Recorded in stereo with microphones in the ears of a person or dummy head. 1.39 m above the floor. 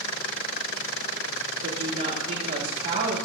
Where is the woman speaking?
55° right (ahead or behind), 3 m.